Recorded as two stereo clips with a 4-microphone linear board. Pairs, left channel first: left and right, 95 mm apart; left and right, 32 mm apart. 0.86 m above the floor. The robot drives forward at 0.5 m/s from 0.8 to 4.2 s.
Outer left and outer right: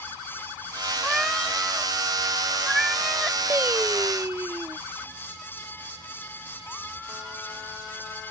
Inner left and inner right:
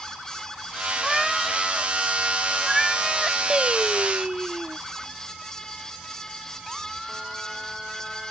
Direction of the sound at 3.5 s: 25° right (ahead or behind).